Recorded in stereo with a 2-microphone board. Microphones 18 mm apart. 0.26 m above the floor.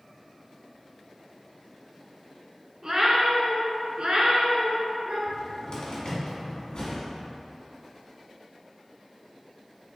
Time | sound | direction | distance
2.8 | a cat meowing | 35° right (ahead or behind) | 0.7 m
5.3 | a cupboard door | 50° left (ahead or behind) | 1.3 m